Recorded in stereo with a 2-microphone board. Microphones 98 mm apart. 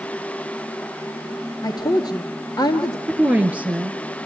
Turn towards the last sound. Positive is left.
turn(degrees=-15)  # may be behind; listen again after turning